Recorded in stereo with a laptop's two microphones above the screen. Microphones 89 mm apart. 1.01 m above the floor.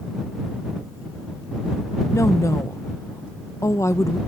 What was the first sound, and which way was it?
A woman speaking, 30° left (ahead or behind).